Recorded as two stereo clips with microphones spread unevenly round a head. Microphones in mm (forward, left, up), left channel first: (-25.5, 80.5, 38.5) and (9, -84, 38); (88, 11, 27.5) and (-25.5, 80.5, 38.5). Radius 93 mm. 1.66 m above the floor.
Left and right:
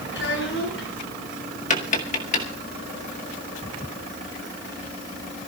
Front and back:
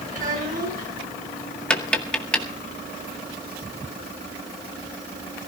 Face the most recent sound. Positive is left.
turn(degrees=50)